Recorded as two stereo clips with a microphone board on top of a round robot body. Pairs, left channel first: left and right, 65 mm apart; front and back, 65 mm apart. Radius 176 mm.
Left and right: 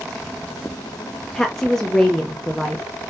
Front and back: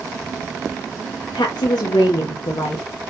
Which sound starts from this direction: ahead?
A woman speaking, at 1.3 s.